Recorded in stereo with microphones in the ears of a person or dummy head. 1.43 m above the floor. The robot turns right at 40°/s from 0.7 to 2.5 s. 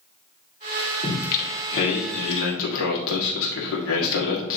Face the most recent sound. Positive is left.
turn(degrees=90)